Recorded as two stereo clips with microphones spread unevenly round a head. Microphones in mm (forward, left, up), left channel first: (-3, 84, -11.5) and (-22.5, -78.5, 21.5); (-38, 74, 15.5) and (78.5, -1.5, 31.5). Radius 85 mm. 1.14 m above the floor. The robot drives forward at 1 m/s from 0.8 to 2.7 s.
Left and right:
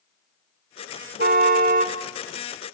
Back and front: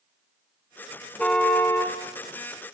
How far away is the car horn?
About 2 m.